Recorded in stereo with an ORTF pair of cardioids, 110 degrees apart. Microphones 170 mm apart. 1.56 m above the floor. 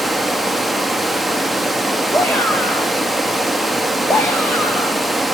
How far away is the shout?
About 1.6 m.